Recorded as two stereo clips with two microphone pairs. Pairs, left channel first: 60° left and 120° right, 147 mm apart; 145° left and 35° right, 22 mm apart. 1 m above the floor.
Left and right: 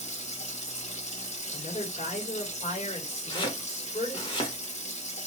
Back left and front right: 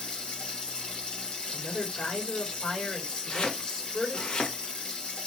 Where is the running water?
100° left, 0.9 m.